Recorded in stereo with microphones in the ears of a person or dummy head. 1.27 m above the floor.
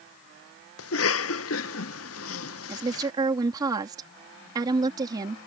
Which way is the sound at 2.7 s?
25° right (ahead or behind).